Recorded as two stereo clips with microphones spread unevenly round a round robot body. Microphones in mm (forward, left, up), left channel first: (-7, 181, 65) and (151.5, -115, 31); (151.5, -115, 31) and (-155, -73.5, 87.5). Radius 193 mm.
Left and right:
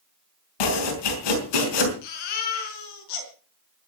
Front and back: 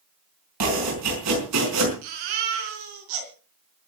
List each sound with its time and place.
0.6 s chopping: 125° left, 5 m
2.0 s a baby crying: 150° left, 4.5 m